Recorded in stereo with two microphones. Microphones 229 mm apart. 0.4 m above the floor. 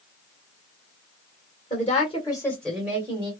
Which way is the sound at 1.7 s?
35° left (ahead or behind).